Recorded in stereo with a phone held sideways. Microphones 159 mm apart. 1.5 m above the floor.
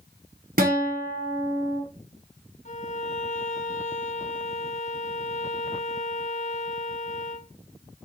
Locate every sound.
0.6 s a guitar: 65° right (ahead or behind), 1.2 m
2.6 s a violin: 50° left (ahead or behind), 0.6 m